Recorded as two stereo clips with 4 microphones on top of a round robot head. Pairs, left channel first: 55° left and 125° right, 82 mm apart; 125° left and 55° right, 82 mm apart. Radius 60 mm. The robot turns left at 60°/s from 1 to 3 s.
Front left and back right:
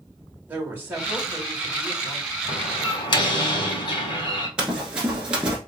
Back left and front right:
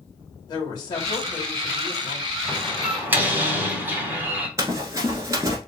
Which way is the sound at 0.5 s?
170° left.